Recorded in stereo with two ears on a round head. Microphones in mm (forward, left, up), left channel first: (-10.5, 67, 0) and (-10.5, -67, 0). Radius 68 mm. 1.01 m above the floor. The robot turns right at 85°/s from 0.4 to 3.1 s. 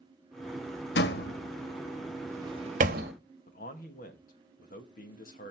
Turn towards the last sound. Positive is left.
turn(degrees=60)  # may be behind; listen again after turning